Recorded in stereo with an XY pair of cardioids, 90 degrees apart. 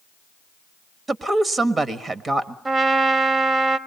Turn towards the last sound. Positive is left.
turn(degrees=-35)